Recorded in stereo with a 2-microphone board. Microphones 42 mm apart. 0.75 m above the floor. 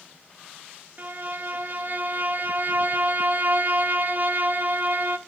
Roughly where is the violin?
Right.